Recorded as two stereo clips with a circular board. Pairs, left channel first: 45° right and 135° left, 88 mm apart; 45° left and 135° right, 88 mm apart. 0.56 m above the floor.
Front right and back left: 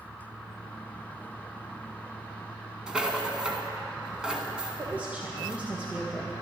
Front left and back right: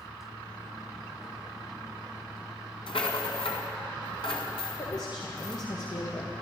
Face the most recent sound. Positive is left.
turn(degrees=65)